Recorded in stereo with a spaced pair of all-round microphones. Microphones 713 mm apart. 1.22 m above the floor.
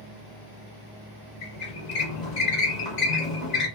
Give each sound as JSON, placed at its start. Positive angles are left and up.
{"t": 1.4, "sound": "a squeak", "side_deg": 70, "distance_m": 1.0}